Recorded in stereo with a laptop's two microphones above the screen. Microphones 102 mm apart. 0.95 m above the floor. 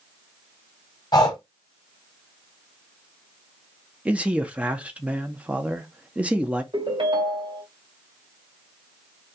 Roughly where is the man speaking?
Centre.